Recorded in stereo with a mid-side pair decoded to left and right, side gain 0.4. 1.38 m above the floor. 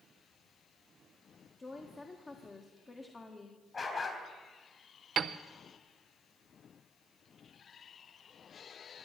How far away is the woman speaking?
About 1.6 m.